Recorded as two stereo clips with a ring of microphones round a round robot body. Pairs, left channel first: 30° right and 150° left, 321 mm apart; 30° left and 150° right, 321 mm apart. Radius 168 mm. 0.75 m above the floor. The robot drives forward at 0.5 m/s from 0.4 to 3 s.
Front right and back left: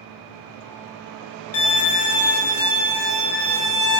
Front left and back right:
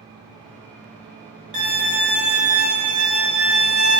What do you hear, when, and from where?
1.5 s a violin: 75° right, 1.1 m; by 4.0 s 110° right, 1.2 m